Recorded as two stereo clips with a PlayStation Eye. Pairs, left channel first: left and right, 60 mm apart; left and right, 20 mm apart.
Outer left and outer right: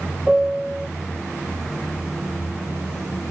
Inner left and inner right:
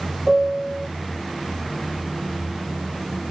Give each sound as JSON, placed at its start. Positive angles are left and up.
{"t": 0.3, "sound": "a piano", "side_deg": -10}